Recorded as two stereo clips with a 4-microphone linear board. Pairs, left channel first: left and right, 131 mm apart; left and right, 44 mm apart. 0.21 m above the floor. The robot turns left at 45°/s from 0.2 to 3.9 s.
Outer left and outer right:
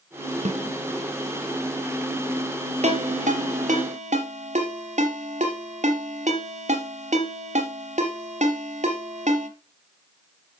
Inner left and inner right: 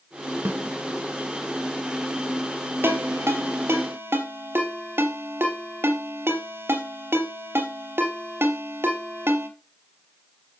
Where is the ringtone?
60° right (ahead or behind), 3 m; by 9.5 s 65° right (ahead or behind), 3 m.